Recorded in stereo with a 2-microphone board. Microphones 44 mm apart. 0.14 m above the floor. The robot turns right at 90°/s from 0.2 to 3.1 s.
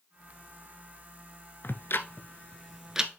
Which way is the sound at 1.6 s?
55° left (ahead or behind).